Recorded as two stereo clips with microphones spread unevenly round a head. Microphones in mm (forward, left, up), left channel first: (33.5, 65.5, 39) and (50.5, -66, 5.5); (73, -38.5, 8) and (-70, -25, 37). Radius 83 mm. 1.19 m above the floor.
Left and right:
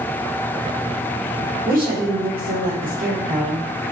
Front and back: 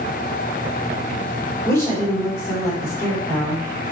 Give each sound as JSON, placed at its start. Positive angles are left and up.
{"t": 1.6, "sound": "a woman speaking", "azimuth_deg": -75, "distance_m": 5.0}